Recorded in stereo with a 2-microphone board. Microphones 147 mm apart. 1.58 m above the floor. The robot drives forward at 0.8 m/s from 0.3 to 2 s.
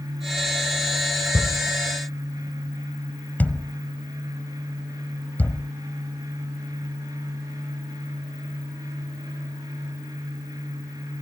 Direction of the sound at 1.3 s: 15° left (ahead or behind).